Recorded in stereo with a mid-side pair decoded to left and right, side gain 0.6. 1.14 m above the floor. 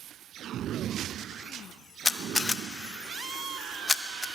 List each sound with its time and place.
2.0 s a camera shutter: 10° left, 0.8 m